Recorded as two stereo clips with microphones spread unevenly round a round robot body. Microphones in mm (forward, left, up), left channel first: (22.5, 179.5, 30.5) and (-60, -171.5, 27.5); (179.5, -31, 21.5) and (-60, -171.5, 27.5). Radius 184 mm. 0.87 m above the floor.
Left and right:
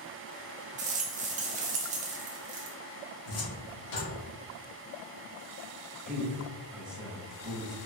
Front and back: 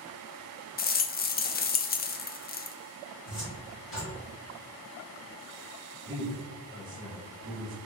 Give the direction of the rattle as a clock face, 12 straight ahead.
1 o'clock.